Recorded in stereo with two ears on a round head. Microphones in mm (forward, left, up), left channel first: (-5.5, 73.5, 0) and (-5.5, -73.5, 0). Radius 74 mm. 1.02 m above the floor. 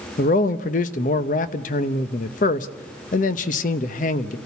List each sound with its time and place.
0.2 s a man speaking: 50° left (ahead or behind), 0.9 m